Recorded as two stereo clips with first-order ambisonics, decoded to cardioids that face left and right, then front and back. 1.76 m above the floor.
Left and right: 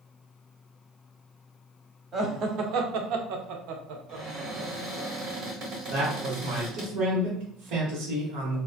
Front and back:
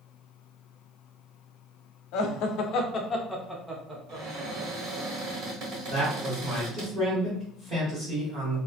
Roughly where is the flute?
No flute in this recording.